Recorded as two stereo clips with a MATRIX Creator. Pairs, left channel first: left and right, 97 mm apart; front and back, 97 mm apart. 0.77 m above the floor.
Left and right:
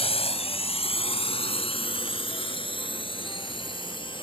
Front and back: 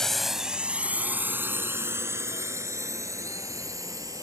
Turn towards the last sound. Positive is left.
turn(degrees=125)